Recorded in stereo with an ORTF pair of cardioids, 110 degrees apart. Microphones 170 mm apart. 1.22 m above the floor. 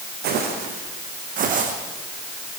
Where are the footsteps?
70° right, 4.5 m; by 1.7 s 50° right, 4 m.